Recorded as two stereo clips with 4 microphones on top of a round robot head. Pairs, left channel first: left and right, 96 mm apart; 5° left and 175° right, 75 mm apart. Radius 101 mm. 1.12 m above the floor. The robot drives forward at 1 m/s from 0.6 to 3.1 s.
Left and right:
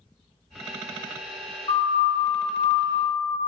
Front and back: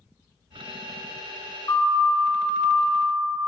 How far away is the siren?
About 6 m.